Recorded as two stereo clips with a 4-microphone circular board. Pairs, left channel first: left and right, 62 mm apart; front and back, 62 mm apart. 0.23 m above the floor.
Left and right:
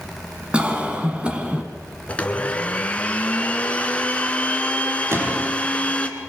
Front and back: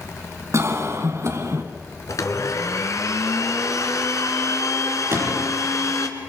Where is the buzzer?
I don't hear a buzzer.